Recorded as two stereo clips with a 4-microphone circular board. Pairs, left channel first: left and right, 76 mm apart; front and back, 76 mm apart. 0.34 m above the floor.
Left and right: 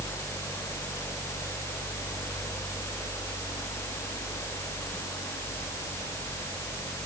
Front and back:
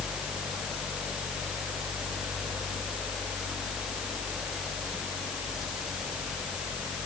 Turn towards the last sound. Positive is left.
No sound to turn to.